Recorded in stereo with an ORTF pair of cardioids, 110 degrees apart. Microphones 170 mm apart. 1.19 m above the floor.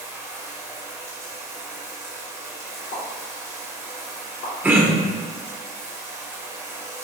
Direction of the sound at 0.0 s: 15° right.